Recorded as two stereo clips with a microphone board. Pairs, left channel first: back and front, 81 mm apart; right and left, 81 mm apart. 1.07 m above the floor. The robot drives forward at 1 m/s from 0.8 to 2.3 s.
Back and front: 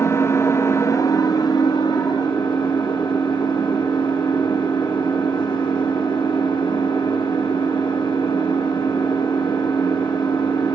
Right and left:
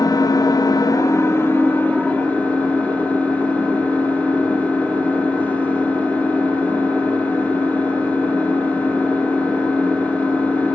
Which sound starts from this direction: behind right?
An engine running, at 0.0 s.